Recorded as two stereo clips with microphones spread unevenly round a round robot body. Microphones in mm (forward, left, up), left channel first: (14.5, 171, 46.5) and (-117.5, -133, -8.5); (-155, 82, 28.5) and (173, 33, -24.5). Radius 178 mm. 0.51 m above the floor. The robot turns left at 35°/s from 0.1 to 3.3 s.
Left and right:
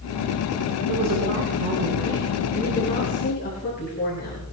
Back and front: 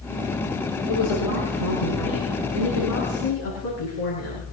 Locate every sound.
0.9 s a woman speaking: 145° right, 8.5 m; by 4.4 s 130° left, 8.5 m